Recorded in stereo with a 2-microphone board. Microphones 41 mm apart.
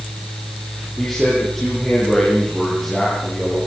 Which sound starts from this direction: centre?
A man speaking, at 1.0 s.